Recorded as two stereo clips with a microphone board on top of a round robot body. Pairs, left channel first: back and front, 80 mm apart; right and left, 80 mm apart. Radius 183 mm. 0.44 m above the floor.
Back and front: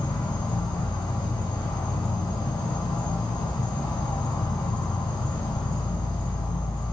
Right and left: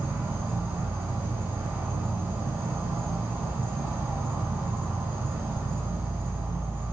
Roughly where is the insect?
Behind left.